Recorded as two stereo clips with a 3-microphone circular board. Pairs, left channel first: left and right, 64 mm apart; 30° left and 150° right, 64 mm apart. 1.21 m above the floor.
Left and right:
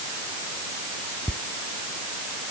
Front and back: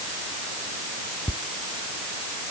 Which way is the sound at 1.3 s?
25° left.